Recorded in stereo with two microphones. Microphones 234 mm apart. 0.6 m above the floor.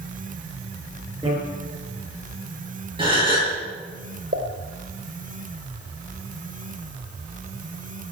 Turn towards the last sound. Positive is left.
turn(degrees=-55)  # may be behind; listen again after turning